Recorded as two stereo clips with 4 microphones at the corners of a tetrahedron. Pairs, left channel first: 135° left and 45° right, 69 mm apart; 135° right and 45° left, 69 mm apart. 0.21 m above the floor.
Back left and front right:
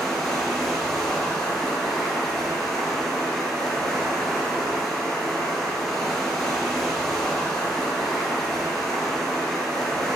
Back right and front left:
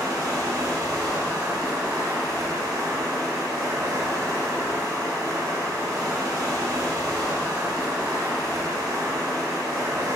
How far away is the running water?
About 3.5 m.